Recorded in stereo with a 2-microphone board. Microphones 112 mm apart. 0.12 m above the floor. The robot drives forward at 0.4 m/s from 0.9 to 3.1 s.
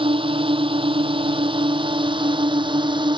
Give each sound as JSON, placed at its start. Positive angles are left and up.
{"t": 0.0, "sound": "a drone", "side_deg": -50}